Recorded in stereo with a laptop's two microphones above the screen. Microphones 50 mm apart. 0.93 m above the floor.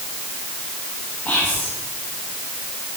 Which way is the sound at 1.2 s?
30° left (ahead or behind).